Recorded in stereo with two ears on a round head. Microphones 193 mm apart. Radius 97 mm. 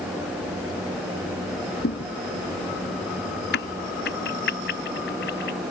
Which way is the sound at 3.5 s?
55° left (ahead or behind).